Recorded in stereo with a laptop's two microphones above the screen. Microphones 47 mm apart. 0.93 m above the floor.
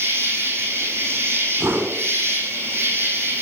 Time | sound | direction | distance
0.0 | an insect | 55° right (ahead or behind) | 5 m
1.6 | a whoosh | 75° right (ahead or behind) | 3.5 m